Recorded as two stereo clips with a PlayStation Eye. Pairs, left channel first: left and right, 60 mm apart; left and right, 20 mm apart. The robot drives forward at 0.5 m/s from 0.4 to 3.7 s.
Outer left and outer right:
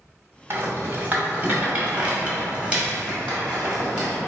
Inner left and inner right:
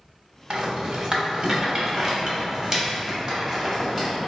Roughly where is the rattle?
Right.